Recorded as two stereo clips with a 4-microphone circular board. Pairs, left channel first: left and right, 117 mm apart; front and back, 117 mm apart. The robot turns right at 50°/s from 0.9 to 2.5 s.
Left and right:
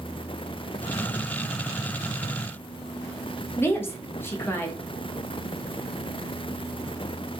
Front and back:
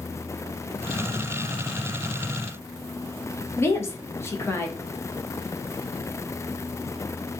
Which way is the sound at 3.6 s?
45° left.